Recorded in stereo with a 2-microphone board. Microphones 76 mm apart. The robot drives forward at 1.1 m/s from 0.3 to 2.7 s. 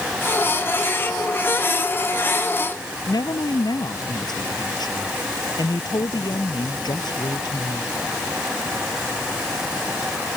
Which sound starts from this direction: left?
A woman speaking, at 3.1 s.